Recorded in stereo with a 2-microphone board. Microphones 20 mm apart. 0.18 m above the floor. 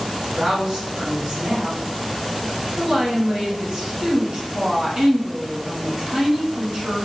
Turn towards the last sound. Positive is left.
turn(degrees=-40)  # may be behind; listen again after turning